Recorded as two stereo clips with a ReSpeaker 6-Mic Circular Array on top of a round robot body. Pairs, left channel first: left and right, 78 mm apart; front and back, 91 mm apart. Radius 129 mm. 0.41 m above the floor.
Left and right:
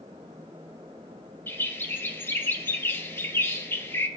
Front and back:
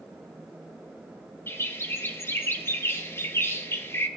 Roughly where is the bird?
Ahead left.